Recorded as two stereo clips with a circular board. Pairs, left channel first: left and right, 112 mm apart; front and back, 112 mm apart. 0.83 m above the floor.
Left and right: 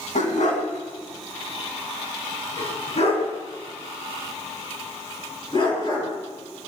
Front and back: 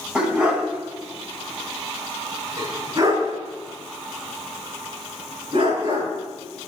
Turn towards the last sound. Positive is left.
turn(degrees=135)